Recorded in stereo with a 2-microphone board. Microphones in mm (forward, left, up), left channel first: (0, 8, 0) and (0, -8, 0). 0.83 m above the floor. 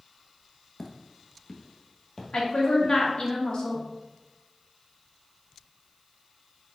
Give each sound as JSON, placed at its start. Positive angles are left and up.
{"t": 0.8, "sound": "footsteps", "side_deg": 20, "distance_m": 0.8}
{"t": 2.3, "sound": "a woman speaking", "side_deg": 60, "distance_m": 1.4}